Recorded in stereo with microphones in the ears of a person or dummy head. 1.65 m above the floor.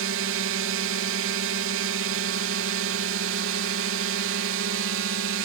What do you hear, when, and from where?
0.0 s a drone: 65° right (ahead or behind)